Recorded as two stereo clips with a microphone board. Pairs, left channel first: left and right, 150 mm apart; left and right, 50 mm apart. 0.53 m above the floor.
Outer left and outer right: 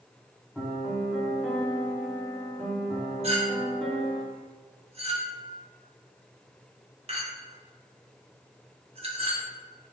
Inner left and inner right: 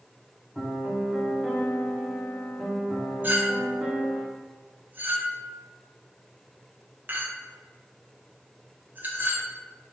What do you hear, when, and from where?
0.6 s a piano: centre (ahead or behind), 1.4 m
3.2 s a clink: 40° right (ahead or behind), 1.0 m